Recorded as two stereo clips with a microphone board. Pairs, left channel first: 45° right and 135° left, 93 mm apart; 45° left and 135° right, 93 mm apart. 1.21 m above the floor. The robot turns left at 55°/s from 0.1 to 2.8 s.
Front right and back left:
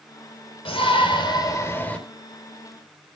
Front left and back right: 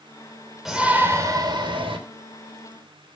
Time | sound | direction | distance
0.7 | a shout | 50° right | 4.5 m